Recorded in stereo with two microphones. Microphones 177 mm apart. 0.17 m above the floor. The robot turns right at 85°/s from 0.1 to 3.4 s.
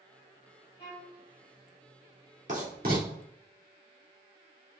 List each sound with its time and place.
0.8 s a violin: 75° left, 2 m; by 1.2 s 110° left, 2 m
2.5 s writing: 40° right (ahead or behind), 2 m; by 3.1 s 60° right (ahead or behind), 2 m